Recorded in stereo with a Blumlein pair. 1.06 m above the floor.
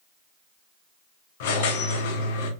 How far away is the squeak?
About 0.7 m.